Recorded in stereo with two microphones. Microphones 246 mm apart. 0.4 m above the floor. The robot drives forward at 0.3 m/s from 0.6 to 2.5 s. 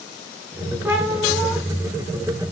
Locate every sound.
0.8 s a cat meowing: 5° right (ahead or behind), 2.5 m